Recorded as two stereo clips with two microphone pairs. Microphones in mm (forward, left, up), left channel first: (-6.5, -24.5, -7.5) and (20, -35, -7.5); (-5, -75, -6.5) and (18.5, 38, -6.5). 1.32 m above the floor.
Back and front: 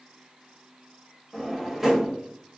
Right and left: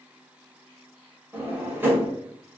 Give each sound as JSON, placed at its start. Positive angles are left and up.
{"t": 1.3, "sound": "a drawer", "azimuth_deg": 50, "distance_m": 1.1}